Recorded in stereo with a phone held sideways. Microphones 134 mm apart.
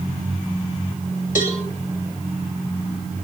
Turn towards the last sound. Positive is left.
turn(degrees=75)  # may be behind; listen again after turning